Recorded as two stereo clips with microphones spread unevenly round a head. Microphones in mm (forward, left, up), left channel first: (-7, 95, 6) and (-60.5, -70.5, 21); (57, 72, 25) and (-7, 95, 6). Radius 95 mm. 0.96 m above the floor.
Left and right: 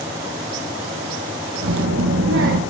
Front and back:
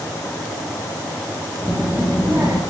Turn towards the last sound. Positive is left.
turn(degrees=-120)